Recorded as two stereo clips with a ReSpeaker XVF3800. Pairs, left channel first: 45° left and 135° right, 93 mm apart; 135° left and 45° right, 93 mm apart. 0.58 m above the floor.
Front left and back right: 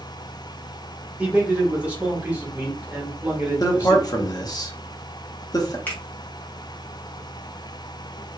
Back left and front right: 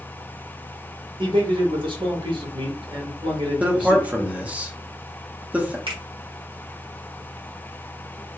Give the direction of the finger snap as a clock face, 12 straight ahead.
1 o'clock.